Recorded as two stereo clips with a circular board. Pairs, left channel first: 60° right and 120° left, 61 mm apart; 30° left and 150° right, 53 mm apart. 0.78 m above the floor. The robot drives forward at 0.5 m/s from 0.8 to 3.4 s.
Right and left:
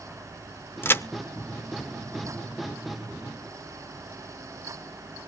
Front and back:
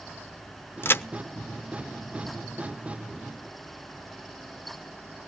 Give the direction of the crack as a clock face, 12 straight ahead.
12 o'clock.